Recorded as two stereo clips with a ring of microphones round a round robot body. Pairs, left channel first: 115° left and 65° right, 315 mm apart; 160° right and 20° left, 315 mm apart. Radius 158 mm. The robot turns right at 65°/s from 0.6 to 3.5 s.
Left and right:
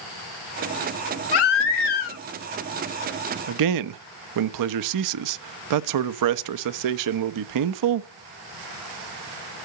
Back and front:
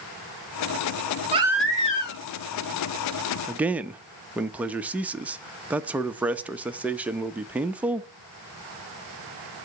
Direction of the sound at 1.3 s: 95° left.